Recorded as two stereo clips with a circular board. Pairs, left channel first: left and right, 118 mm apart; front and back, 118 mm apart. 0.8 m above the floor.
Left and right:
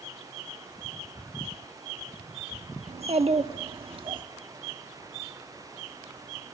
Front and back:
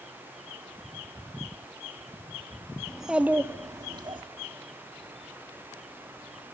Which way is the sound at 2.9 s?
90° right.